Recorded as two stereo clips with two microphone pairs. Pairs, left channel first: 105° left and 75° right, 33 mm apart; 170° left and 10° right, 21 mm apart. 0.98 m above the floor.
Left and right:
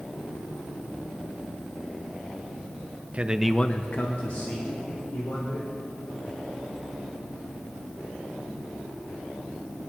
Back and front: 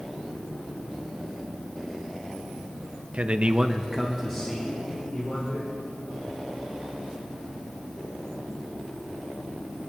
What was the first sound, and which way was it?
A man speaking, 30° right.